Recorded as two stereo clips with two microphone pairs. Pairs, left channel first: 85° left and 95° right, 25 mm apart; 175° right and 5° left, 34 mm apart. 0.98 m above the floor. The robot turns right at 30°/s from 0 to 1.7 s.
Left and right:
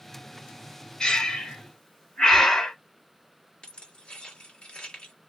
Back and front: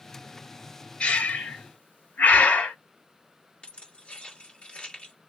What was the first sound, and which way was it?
Breathing, 135° left.